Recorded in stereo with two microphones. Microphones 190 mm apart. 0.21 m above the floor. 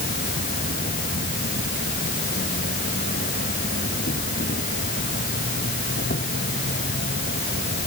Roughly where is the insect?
Left.